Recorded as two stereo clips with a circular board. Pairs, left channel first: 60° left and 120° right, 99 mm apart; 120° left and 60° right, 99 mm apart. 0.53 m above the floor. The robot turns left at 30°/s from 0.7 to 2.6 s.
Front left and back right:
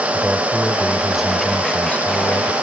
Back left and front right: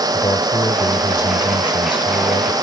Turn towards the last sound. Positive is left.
turn(degrees=110)